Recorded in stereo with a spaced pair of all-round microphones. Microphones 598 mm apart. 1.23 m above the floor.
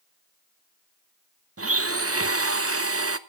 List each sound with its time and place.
1.6 s a blender: 25° right (ahead or behind), 0.8 m